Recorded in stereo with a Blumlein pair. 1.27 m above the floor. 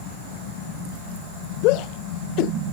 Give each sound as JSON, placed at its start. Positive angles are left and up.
{"t": 1.6, "sound": "a shout", "azimuth_deg": 40}